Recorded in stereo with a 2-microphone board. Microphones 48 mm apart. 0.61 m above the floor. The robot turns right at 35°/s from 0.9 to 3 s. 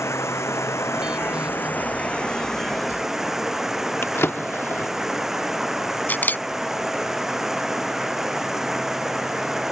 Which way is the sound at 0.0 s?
115° left.